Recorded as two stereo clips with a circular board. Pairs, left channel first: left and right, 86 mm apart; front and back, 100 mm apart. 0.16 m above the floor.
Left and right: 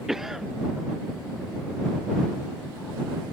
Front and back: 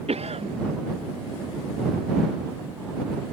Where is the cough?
175° right.